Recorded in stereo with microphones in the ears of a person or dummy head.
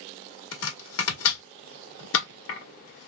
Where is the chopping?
65° left (ahead or behind), 1.2 m.